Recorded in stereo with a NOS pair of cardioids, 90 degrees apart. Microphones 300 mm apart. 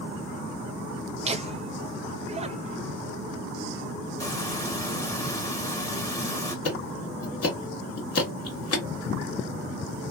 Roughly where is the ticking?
Ahead left.